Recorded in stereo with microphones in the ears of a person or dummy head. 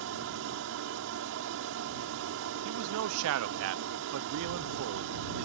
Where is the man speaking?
70° right (ahead or behind).